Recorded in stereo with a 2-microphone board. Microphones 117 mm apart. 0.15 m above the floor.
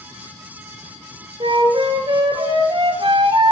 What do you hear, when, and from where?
1.4 s a flute: 45° right (ahead or behind), 1.0 m